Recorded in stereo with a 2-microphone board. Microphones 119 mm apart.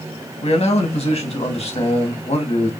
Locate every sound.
0.4 s a man speaking: 60° left (ahead or behind), 1.4 m